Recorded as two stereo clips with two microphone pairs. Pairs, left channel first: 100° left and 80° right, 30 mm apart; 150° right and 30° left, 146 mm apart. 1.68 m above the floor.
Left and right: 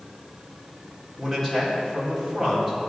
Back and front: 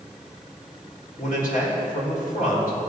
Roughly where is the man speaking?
Behind.